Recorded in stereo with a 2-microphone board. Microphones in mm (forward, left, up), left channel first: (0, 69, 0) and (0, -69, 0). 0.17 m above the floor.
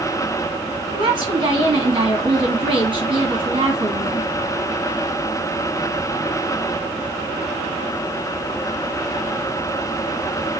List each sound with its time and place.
0.9 s a woman speaking: 35° right (ahead or behind), 1.5 m